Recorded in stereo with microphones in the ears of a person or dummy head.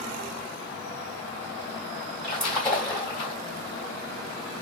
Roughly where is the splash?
Centre.